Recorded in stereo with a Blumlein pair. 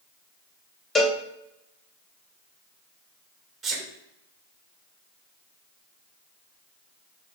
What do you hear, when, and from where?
0.9 s a cowbell: 15° left, 0.6 m
3.6 s a sneeze: 25° right, 1.2 m